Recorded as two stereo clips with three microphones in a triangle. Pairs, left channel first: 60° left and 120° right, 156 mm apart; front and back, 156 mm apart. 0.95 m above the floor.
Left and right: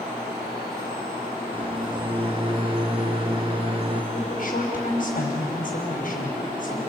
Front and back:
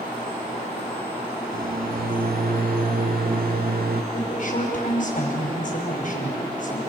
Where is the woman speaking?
35° left, 5.5 m.